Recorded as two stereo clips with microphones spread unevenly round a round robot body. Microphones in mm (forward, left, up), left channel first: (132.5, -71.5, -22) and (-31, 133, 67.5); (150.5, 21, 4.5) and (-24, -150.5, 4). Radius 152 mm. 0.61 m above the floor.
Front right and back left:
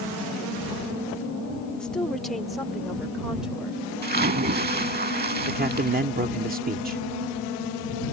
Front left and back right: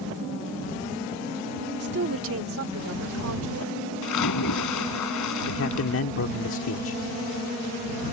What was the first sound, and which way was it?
A woman speaking, 115° right.